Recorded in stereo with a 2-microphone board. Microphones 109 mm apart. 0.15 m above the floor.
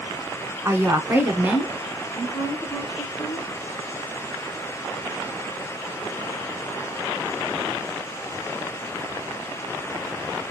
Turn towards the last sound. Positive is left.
turn(degrees=-10)  # may be behind; listen again after turning